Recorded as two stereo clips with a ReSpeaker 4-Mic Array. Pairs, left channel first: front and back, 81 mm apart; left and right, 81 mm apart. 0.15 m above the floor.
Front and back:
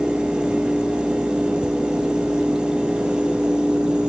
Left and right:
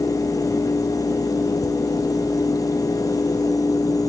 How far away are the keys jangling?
I don't hear keys jangling.